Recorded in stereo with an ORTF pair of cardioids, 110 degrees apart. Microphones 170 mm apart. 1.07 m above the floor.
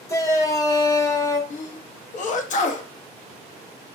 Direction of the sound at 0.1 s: 20° left.